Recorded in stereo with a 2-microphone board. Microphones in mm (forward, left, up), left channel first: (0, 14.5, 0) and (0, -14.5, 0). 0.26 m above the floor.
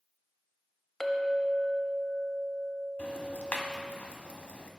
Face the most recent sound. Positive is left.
turn(degrees=55)  # may be behind; listen again after turning